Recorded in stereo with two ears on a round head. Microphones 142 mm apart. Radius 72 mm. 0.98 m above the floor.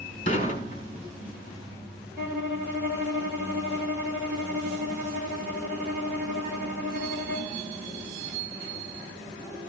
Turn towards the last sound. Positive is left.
turn(degrees=-10)  # may be behind; listen again after turning